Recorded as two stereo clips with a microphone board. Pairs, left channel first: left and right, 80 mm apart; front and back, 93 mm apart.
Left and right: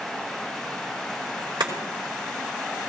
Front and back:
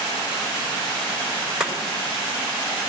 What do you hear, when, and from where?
1.6 s chopping: 95° right, 3.5 m